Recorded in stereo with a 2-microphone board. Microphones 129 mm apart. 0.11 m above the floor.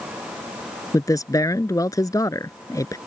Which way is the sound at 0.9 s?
25° left (ahead or behind).